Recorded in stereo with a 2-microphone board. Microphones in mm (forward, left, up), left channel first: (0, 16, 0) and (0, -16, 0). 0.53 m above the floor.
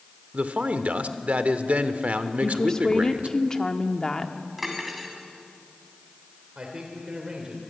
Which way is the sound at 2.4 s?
25° left (ahead or behind).